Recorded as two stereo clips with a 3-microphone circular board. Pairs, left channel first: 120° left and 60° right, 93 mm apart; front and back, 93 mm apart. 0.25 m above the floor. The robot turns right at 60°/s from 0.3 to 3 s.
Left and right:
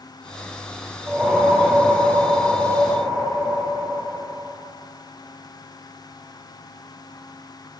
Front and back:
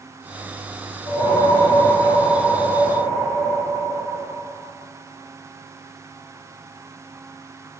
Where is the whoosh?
5° left, 5.5 m; by 4.5 s 120° left, 5.5 m.